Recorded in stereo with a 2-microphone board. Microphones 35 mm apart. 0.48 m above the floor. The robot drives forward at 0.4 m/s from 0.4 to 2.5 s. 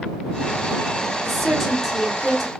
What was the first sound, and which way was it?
A woman speaking, 5° left (ahead or behind).